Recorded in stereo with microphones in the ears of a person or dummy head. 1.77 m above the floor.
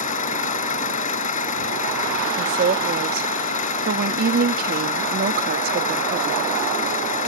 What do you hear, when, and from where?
0.0 s an engine running: 40° left (ahead or behind)
2.4 s a woman speaking: 55° right (ahead or behind)